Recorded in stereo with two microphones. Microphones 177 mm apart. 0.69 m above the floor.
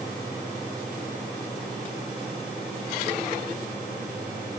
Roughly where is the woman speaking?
I don't hear a woman speaking.